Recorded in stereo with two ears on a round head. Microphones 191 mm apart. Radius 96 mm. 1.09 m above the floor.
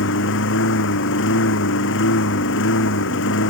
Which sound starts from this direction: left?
A lawn mower, at 0.0 s.